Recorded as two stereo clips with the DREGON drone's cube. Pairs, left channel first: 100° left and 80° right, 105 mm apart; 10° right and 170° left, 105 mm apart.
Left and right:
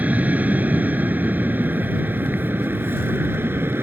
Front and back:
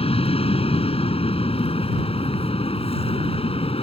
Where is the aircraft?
5° right; by 3.8 s 15° right.